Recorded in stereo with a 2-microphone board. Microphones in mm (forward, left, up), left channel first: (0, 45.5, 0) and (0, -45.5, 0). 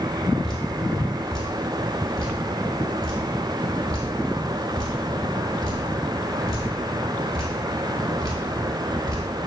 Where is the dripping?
40° right (ahead or behind), 1.6 m.